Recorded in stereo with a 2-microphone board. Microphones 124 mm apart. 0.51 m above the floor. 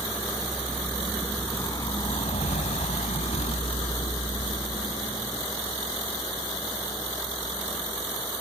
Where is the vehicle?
Centre (ahead or behind); by 8.4 s 25° left (ahead or behind).